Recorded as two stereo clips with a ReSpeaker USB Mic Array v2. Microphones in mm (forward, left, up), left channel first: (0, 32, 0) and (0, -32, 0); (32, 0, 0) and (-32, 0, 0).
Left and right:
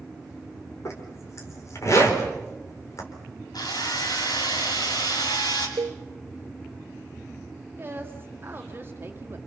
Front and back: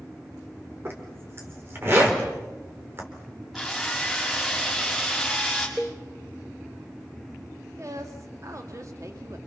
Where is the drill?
95° left, 6.5 m.